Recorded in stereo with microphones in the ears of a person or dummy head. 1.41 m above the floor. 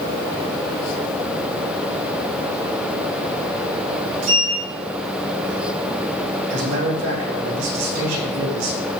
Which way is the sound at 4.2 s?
85° right.